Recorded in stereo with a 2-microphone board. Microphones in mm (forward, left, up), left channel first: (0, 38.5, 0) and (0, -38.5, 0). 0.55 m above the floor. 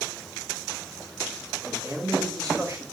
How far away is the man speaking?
About 5 m.